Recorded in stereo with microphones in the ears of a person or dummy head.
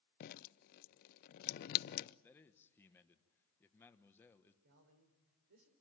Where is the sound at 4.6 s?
50° right (ahead or behind), 4 m.